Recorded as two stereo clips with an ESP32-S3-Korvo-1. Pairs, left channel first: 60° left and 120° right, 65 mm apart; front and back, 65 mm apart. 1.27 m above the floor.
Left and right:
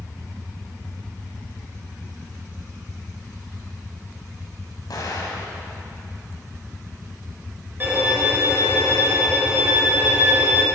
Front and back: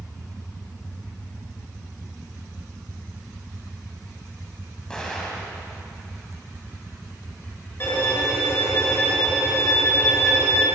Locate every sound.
4.9 s an explosion: 80° left, 3.5 m
7.8 s a violin: 55° right, 5 m